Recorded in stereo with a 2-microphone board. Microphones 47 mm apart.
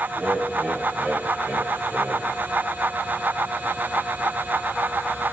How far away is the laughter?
About 5 m.